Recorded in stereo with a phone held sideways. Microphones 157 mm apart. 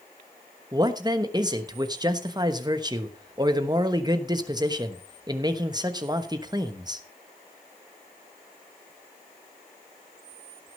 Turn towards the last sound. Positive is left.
turn(degrees=-25)  # may be behind; listen again after turning